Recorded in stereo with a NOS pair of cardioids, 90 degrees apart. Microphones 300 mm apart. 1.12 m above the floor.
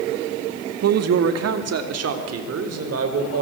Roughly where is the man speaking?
Ahead right.